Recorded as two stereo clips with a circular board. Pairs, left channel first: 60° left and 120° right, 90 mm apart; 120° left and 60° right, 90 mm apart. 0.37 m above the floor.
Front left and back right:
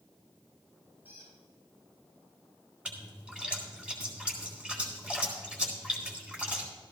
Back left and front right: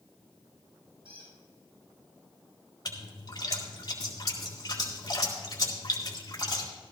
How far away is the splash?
About 3 m.